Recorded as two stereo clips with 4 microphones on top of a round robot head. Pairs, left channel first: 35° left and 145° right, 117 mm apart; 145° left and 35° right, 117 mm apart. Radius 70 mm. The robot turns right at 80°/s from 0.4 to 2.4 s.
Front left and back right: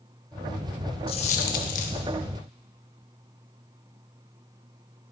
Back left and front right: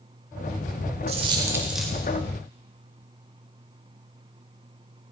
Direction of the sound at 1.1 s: 5° right.